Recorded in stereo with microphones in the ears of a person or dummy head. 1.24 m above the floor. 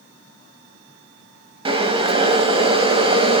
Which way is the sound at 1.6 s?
30° right (ahead or behind).